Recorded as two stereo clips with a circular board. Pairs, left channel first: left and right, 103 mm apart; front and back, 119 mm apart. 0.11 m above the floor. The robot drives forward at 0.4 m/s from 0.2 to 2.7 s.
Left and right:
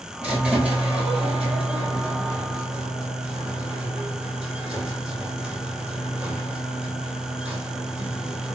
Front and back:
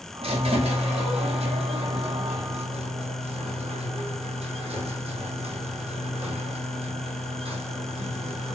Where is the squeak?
165° right, 2.5 m; by 8.6 s 170° right, 3 m.